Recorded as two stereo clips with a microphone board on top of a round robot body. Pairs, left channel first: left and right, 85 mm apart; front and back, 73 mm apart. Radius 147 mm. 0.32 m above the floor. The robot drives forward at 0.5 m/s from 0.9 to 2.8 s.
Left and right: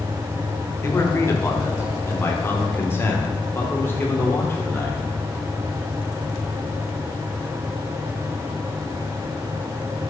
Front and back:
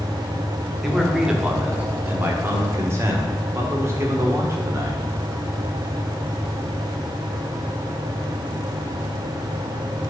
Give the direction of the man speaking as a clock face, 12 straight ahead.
9 o'clock.